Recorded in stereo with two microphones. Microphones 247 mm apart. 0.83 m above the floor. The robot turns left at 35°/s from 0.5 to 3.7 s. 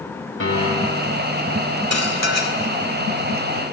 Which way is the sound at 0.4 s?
50° left (ahead or behind).